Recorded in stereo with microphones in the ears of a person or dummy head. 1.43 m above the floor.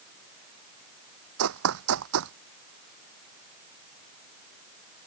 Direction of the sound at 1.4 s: 75° right (ahead or behind).